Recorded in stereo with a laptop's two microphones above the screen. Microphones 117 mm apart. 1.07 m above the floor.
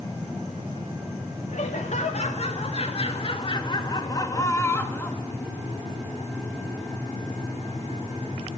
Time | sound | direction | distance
1.5 | laughter | 70° left (ahead or behind) | 2 m